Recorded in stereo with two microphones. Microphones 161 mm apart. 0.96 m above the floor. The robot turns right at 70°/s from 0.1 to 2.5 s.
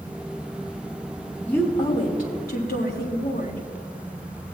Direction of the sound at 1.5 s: 5° left.